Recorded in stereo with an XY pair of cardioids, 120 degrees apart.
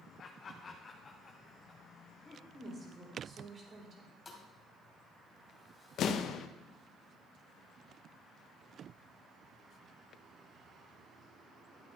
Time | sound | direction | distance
0.2 | laughter | 45° left | 1.0 m
2.5 | a woman speaking | 35° right | 3.5 m
4.2 | a thud | 20° left | 2.5 m
6.0 | an explosion | 60° left | 0.8 m